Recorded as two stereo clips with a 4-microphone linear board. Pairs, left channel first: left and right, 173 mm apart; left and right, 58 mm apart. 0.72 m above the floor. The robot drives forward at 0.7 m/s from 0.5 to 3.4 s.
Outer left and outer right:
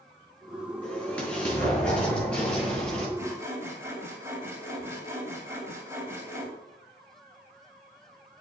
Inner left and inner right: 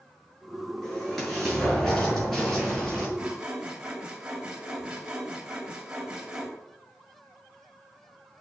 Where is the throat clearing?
No throat clearing in this recording.